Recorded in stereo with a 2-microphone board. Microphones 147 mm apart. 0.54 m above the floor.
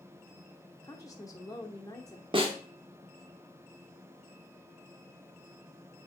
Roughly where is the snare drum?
Right.